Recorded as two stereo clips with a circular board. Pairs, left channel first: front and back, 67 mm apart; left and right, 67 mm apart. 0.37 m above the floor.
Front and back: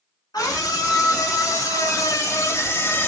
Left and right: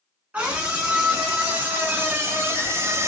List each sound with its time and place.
0.3 s a scream: 20° right, 3 m; by 3.1 s 50° right, 1.3 m